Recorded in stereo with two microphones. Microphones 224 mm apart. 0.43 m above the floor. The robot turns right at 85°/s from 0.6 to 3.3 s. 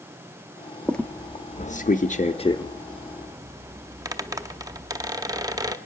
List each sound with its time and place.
0.8 s a squeak: centre (ahead or behind), 0.8 m; by 5.8 s 15° right (ahead or behind), 0.8 m